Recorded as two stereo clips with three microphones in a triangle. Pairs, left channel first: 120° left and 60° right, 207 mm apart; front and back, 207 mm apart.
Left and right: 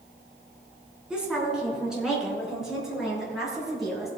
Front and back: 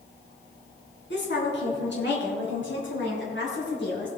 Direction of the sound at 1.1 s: 25° left.